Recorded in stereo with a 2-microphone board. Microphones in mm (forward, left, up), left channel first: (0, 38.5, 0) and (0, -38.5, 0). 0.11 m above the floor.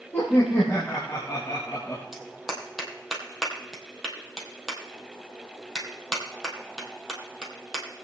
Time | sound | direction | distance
0.1 | laughter | 30° left (ahead or behind) | 4 m
2.1 | a clap | 5° right (ahead or behind) | 2.5 m